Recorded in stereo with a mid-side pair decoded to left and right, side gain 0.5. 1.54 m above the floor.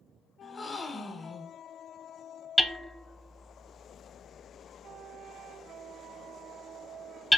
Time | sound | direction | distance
0.4 | a gasp | 30° left | 0.7 m
2.6 | hammering | 5° left | 0.6 m